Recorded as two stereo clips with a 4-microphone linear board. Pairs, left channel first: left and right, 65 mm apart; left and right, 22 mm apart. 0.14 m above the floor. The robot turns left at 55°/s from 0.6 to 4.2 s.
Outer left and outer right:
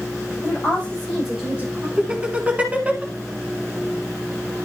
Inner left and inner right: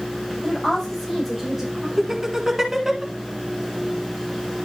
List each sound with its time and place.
0.4 s a woman speaking: 30° left, 6 m; by 1.9 s 40° right, 6 m
2.0 s laughter: 20° right (ahead or behind), 1.2 m; by 3.0 s 25° right (ahead or behind), 1.2 m